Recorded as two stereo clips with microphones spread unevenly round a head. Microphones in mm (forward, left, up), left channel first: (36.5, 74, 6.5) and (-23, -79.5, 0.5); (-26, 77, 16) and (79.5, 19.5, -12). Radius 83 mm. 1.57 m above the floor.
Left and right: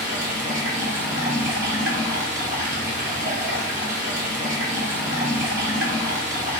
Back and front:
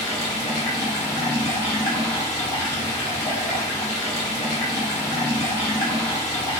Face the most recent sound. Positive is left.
turn(degrees=-160)